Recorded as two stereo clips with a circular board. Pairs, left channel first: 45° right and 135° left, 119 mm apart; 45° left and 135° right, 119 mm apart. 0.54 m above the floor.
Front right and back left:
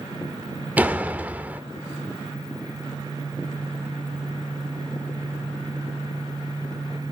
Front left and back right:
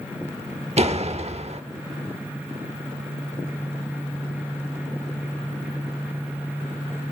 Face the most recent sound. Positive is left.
turn(degrees=-150)